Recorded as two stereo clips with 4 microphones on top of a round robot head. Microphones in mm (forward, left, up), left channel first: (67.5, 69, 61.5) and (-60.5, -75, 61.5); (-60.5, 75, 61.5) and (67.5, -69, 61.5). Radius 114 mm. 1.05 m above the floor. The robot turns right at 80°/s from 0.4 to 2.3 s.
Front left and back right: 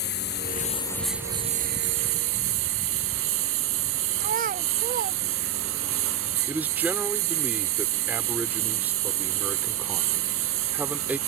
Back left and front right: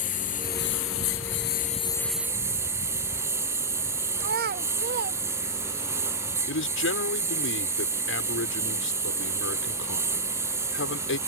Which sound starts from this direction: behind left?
A man speaking, at 6.5 s.